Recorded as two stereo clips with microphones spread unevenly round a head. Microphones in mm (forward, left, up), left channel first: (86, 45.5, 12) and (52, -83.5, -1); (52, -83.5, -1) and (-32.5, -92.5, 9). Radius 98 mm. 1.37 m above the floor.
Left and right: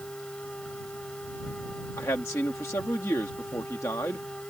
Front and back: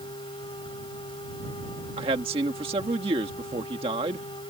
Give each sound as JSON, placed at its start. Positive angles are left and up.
{"t": 0.0, "sound": "a machine running", "azimuth_deg": -5}
{"t": 2.0, "sound": "a man speaking", "azimuth_deg": 150}